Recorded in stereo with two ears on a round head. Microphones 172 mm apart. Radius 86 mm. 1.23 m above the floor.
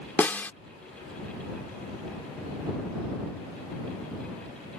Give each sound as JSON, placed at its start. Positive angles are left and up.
{"t": 0.2, "sound": "a snare drum", "side_deg": 10}